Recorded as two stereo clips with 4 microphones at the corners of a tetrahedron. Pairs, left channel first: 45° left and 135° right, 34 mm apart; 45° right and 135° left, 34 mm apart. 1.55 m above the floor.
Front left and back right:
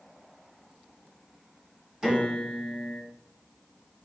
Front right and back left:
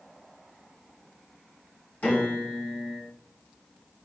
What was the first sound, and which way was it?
A piano, 65° right.